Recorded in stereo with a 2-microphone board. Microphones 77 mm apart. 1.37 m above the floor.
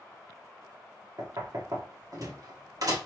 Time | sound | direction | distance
1.2 | knocking | 55° right (ahead or behind) | 1.2 m